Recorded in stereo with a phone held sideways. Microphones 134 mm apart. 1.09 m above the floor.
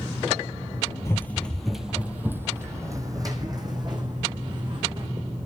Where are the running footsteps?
20° left (ahead or behind), 1.4 m; by 5.1 s 40° right (ahead or behind), 4.5 m.